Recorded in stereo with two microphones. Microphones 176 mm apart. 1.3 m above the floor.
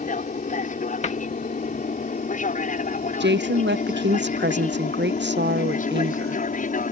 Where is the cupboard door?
40° left (ahead or behind).